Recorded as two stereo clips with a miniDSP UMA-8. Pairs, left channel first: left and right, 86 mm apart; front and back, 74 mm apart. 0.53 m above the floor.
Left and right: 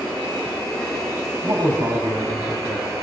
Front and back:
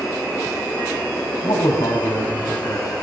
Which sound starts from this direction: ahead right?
A man speaking, at 1.4 s.